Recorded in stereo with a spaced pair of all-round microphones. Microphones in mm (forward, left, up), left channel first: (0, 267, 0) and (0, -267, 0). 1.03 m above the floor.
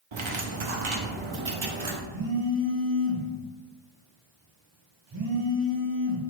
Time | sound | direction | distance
0.1 | cutlery clinking | 60° right (ahead or behind) | 0.7 m
2.1 | a phone buzzing | 55° right (ahead or behind) | 0.9 m